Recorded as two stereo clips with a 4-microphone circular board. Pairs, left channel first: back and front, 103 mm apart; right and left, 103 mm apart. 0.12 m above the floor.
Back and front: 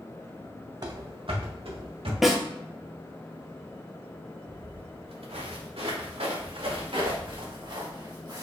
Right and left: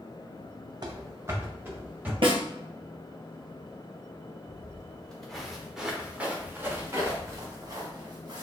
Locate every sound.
0.8 s running footsteps: 45° left, 0.6 m; by 2.1 s 15° left, 1.9 m
2.2 s a snare drum: 85° left, 1.0 m
4.5 s footsteps: 20° right, 1.8 m; by 8.4 s 45° left, 2.5 m